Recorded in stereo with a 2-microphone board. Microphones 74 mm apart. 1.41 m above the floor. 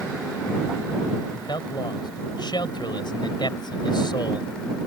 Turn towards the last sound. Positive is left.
turn(degrees=80)